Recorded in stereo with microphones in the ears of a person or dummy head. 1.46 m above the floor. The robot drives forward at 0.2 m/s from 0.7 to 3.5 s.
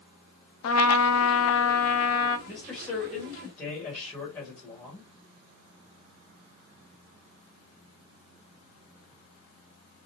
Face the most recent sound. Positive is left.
turn(degrees=15)  # may be behind; listen again after turning